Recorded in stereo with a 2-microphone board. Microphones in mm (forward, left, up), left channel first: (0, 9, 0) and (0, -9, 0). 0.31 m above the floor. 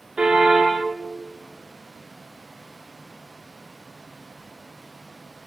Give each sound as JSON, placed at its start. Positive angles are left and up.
{"t": 0.2, "sound": "a car horn", "side_deg": -55, "distance_m": 7.0}